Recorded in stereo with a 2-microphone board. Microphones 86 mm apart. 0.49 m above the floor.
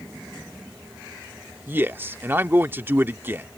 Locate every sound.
1.7 s a man speaking: 25° right (ahead or behind)